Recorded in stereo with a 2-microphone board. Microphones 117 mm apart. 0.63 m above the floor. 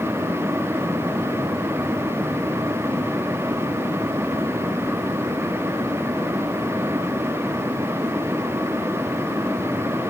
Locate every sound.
Only background noise.